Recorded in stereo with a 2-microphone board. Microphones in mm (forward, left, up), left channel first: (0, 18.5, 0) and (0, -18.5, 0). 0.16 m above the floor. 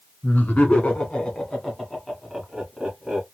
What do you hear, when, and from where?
0.2 s laughter: 45° left (ahead or behind), 1.4 m; by 3.2 s 15° right (ahead or behind), 1.5 m